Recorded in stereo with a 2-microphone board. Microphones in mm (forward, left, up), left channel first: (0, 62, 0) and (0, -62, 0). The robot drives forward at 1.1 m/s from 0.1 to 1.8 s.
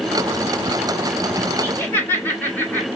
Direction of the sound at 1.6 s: 15° left (ahead or behind).